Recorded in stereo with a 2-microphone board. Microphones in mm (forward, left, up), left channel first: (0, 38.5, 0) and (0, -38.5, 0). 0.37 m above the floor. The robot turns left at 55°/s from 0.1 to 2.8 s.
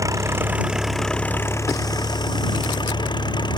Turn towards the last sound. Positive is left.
turn(degrees=75)